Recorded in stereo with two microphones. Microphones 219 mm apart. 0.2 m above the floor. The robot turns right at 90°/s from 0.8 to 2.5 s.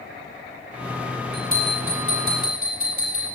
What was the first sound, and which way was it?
A bell, 120° left.